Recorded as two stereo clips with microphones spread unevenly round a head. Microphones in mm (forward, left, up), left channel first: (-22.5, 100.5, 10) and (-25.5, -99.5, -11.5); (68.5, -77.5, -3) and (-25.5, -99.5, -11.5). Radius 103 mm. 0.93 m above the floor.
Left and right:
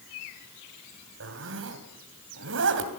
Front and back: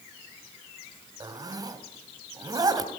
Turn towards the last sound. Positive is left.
turn(degrees=-115)